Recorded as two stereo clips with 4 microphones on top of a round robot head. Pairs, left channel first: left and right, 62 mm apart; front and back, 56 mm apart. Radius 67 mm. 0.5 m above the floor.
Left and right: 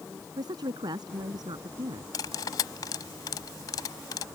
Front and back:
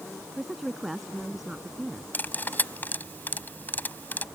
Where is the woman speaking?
95° right.